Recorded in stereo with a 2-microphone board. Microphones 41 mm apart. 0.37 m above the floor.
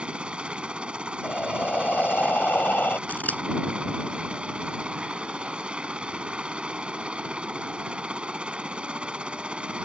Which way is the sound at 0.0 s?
25° right (ahead or behind).